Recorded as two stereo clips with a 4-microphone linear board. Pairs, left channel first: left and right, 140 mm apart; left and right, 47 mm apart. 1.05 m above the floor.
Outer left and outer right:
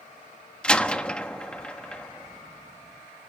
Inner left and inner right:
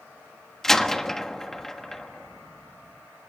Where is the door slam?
5° left (ahead or behind), 1.3 m.